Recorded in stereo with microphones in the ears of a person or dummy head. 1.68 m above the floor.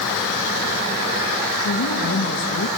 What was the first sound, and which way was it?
A woman speaking, 75° left (ahead or behind).